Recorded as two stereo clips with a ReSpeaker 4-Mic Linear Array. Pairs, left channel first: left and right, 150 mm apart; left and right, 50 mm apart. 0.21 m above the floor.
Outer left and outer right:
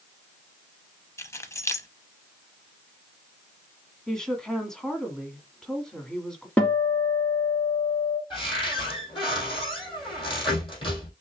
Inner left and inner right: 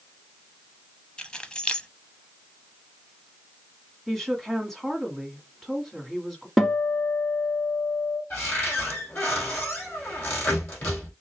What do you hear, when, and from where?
1.2 s keys jangling: 20° left (ahead or behind), 0.7 m
4.1 s a woman speaking: 5° left (ahead or behind), 1.6 m
6.6 s a guitar: 10° left (ahead or behind), 1.3 m
8.3 s a cupboard door: 35° left (ahead or behind), 3 m